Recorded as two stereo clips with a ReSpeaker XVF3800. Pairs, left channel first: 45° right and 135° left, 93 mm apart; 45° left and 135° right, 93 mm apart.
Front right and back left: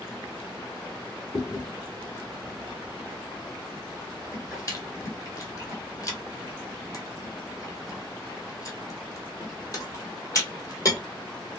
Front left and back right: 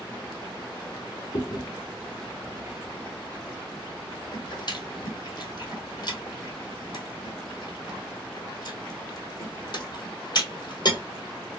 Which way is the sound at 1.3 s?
5° left.